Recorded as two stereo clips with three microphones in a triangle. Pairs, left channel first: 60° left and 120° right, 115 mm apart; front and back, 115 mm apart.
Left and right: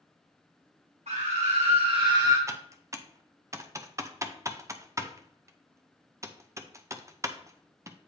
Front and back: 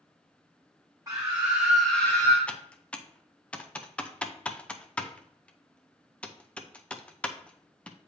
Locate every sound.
1.1 s a scream: 125° right, 1.0 m; by 2.4 s 60° right, 0.9 m
2.5 s typing on a keyboard: 75° right, 0.5 m